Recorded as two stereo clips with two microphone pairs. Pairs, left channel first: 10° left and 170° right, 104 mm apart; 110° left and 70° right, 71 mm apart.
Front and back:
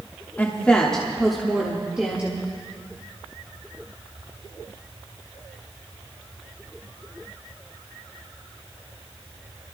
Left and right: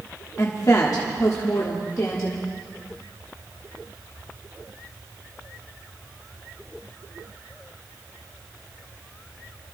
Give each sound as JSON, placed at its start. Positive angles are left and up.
{"t": 0.4, "sound": "a woman speaking", "azimuth_deg": 80, "distance_m": 1.3}